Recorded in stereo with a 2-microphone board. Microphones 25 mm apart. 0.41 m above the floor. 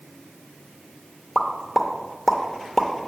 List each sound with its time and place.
1.4 s a pop: 5° left (ahead or behind), 0.7 m